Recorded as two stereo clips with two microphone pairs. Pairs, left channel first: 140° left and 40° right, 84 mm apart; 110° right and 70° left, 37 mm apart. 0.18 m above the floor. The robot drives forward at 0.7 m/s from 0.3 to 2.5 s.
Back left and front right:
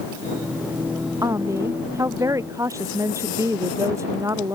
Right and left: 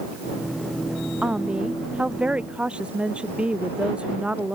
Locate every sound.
1.2 s a woman speaking: 15° left